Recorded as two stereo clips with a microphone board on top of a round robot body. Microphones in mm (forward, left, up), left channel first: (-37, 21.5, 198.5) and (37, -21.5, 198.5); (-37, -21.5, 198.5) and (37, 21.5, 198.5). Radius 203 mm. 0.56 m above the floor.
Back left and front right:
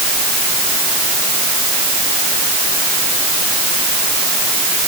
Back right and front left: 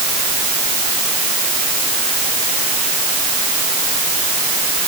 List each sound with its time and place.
Only background noise.